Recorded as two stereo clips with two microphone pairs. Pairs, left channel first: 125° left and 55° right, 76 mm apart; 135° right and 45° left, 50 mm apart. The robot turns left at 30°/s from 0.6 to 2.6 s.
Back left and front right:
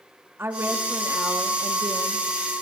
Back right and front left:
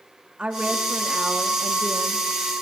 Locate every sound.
0.4 s a woman speaking: 10° right, 1.3 m; by 2.5 s 70° right, 1.3 m